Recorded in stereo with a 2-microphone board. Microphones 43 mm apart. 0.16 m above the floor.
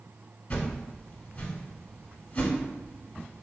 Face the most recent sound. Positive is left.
turn(degrees=35)  # may be behind; listen again after turning